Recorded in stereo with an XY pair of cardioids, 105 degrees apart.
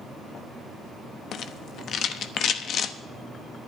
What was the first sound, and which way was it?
A rattle, 65° left.